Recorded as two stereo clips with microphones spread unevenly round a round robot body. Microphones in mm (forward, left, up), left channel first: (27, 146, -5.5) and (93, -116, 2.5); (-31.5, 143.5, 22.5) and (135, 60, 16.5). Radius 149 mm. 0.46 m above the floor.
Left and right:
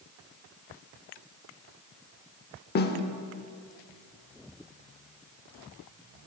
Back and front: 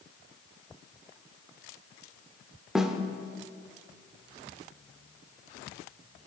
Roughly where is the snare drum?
Ahead left.